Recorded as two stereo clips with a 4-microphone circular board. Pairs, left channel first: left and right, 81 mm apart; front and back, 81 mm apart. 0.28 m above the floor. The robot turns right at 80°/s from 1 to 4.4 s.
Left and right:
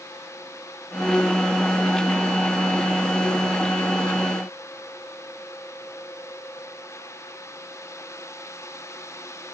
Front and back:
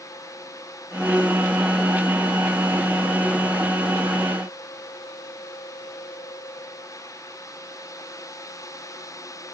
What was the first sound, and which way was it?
Only background noise.